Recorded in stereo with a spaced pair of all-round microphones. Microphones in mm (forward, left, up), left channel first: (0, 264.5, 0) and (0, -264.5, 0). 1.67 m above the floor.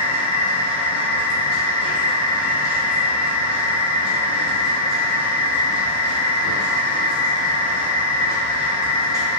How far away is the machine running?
About 1.7 m.